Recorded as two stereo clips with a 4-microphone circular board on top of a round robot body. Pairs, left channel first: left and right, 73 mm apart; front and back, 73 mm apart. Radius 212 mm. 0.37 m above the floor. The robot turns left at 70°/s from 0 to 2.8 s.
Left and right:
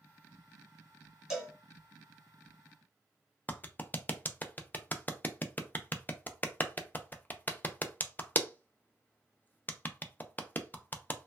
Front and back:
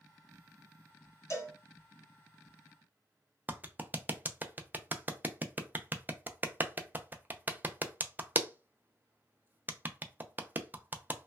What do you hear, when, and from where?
1.3 s a cowbell: 10° right, 1.8 m; by 1.5 s 30° right, 1.8 m
3.5 s a clap: 135° left, 0.6 m